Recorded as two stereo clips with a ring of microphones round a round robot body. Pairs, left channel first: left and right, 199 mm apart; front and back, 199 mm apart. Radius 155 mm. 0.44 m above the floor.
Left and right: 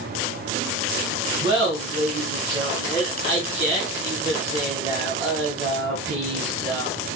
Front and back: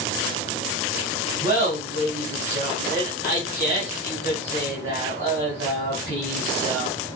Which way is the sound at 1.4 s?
125° right.